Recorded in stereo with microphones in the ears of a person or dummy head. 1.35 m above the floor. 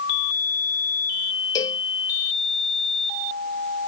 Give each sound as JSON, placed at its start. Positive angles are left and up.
{"t": 1.6, "sound": "a cowbell", "side_deg": 20}